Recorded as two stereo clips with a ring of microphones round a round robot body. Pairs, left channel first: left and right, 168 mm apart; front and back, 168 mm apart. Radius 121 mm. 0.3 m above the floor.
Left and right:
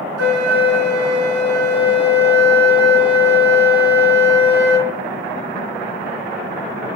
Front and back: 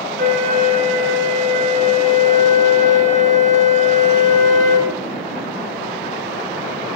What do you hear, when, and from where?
0.2 s a flute: 125° right, 3 m